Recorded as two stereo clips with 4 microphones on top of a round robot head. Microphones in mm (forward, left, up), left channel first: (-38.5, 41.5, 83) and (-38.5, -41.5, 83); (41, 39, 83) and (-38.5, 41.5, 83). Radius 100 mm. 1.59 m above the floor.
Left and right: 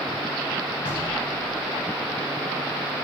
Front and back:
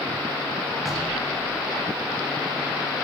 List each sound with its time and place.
0.8 s knocking: 90° left, 3.5 m